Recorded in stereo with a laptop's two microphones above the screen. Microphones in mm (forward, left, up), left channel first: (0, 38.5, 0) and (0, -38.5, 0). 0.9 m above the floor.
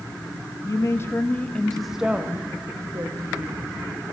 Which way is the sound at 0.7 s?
40° left (ahead or behind).